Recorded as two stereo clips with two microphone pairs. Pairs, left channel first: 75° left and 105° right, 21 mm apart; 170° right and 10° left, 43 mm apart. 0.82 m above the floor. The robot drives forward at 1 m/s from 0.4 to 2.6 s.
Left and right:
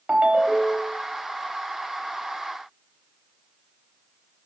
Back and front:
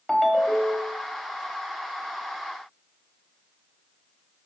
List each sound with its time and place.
0.1 s a ringtone: 85° right, 1.1 m; by 1.0 s 110° right, 1.2 m